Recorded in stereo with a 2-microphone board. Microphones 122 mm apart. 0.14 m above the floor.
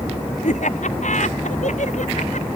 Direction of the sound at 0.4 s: 80° left.